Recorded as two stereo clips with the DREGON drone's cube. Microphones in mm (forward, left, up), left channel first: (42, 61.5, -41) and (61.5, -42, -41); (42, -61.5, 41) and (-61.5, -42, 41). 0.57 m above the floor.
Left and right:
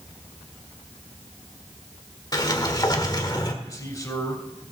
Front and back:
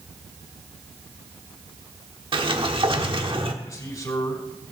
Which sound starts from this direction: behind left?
A sliding door, at 2.3 s.